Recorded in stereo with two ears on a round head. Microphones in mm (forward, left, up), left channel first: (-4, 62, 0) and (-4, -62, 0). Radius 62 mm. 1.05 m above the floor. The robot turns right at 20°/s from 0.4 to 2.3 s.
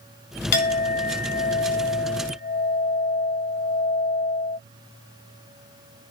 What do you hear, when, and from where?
0.5 s a clink: 80° left, 0.8 m; by 4.6 s 115° left, 0.8 m